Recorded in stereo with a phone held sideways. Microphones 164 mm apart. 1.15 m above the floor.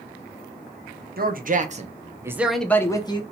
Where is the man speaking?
60° right (ahead or behind), 0.8 m; by 3.2 s 30° left (ahead or behind), 0.7 m.